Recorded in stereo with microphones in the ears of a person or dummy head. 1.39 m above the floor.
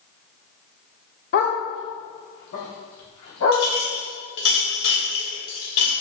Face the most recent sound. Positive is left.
turn(degrees=70)  # may be behind; listen again after turning